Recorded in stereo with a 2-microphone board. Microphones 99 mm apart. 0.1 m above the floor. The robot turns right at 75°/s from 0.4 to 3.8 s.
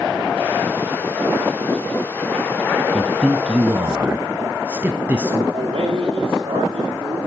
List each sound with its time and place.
2.9 s a man speaking: 5° left (ahead or behind), 1.1 m; by 5.4 s 20° right (ahead or behind), 1.1 m
5.5 s a man speaking: 60° right (ahead or behind), 8.5 m